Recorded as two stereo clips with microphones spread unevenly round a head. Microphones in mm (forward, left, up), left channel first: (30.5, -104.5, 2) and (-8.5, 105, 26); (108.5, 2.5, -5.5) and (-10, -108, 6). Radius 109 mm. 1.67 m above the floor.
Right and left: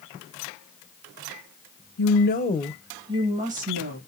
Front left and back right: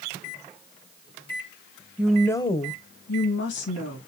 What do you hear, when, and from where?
2.0 s a woman speaking: 60° right, 1.1 m; by 4.0 s 55° left, 2 m